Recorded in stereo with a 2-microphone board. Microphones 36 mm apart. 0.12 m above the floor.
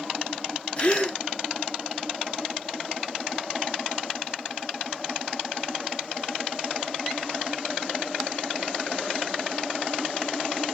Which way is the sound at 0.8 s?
30° left (ahead or behind).